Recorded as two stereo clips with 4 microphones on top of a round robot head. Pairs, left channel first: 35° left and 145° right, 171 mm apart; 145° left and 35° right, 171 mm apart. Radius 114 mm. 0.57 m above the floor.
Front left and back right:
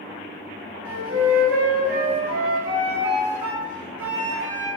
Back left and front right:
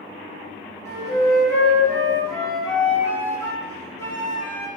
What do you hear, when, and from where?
0.8 s a flute: 140° right, 2 m